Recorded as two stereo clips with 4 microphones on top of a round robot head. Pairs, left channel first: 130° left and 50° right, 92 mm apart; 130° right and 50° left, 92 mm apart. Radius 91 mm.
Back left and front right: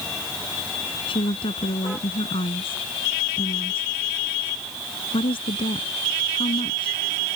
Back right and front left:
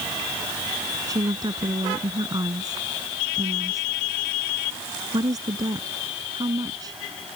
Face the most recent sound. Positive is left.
turn(degrees=100)